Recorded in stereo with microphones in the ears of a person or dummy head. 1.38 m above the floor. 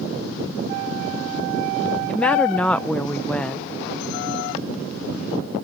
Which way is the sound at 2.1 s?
Centre (ahead or behind).